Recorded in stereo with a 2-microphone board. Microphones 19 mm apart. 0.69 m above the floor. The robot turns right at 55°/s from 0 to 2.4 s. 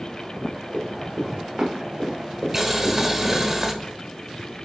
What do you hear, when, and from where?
0.7 s running footsteps: 10° right (ahead or behind), 4 m; by 3.4 s 65° right (ahead or behind), 1.8 m
2.5 s boiling: 25° right (ahead or behind), 1.1 m